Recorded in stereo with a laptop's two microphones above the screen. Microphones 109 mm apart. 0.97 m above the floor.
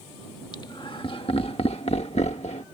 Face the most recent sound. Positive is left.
turn(degrees=70)  # may be behind; listen again after turning